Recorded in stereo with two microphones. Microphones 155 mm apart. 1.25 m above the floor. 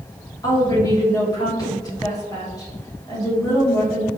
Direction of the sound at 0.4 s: 25° left (ahead or behind).